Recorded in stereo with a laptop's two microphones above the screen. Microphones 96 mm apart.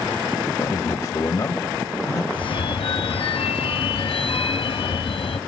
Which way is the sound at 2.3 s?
70° left (ahead or behind).